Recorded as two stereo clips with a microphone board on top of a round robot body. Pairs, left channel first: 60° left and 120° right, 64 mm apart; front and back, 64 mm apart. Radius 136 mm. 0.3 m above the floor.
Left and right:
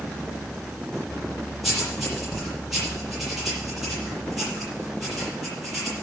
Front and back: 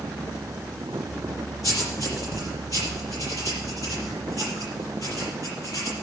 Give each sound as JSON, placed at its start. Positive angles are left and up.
{"t": 1.6, "sound": "writing", "azimuth_deg": -35, "distance_m": 6.5}